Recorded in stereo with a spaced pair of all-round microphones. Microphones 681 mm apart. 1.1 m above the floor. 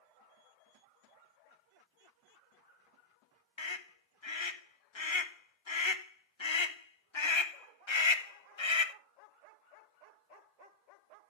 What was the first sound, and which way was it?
A scream, 40° left (ahead or behind).